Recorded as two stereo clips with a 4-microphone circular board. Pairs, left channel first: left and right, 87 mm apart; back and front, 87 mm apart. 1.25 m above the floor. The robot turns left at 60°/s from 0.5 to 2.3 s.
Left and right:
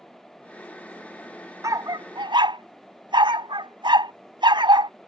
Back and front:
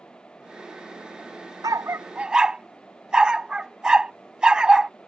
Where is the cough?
I don't hear a cough.